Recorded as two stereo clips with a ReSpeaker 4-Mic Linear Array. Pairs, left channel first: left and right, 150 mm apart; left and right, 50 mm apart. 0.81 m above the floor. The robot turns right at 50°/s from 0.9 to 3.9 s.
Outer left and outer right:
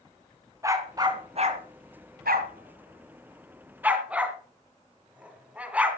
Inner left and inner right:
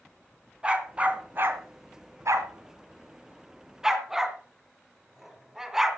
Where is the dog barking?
20° right (ahead or behind), 2 m; by 6.0 s 10° right (ahead or behind), 2 m.